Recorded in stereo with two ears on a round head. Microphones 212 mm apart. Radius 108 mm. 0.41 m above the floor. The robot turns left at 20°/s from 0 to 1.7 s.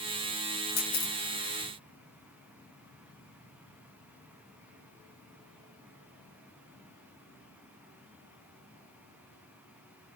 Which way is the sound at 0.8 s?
60° left (ahead or behind).